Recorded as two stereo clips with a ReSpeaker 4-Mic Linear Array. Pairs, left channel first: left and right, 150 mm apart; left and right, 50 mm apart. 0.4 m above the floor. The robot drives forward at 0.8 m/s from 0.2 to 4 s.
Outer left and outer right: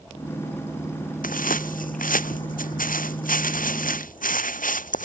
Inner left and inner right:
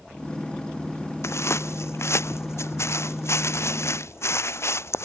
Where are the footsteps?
70° left (ahead or behind); by 5.1 s 65° left (ahead or behind).